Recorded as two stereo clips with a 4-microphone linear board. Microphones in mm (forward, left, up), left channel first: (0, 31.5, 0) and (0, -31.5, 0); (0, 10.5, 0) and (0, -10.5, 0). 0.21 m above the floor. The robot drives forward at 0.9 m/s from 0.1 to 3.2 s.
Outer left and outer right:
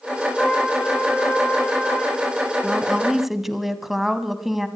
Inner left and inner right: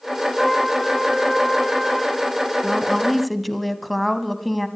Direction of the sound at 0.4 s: 15° left (ahead or behind).